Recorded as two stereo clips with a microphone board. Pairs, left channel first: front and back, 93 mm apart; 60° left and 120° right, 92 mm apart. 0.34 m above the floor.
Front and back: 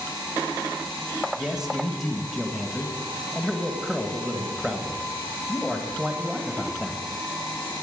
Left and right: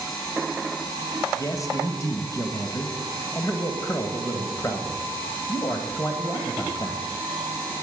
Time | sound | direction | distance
1.4 | a man speaking | 95° left | 1.4 m